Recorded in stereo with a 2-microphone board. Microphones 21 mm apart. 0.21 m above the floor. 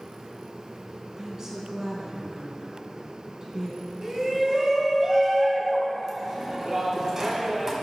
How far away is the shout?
About 1.4 m.